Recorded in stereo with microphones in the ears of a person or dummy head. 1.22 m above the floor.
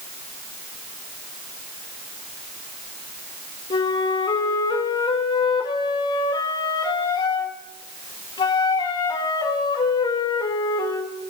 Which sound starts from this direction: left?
A flute, at 3.7 s.